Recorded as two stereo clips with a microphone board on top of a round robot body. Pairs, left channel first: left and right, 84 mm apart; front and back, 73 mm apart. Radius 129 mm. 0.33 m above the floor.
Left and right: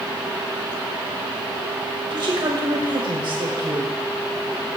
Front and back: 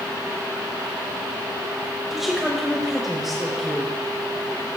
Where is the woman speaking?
90° right, 2 m.